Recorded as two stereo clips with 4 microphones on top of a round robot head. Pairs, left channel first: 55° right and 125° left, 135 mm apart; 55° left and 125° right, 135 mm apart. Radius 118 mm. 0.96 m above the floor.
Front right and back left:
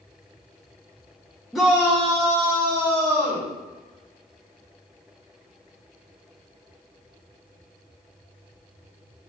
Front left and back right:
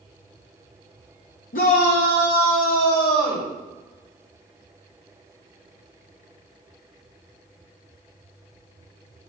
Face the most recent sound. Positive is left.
turn(degrees=70)